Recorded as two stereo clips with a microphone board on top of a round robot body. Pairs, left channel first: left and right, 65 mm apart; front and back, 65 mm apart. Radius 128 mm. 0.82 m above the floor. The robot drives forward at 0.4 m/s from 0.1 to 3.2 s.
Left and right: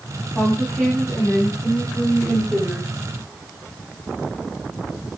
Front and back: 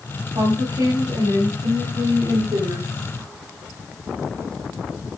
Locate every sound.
0.3 s a woman speaking: 165° left, 3 m; by 2.9 s 170° left, 4 m